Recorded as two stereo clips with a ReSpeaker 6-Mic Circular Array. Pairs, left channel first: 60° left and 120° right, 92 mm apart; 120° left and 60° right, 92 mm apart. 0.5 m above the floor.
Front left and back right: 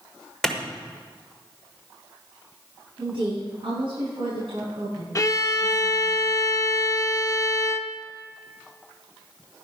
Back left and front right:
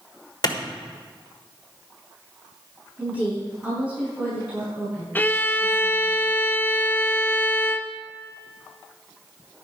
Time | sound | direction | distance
0.4 | a clap | 145° left | 1.4 m
3.0 | a woman speaking | 135° right | 5.5 m
5.2 | a violin | 65° left | 0.6 m